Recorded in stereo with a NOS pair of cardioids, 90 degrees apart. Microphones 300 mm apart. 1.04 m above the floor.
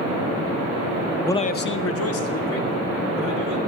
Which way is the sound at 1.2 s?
5° left.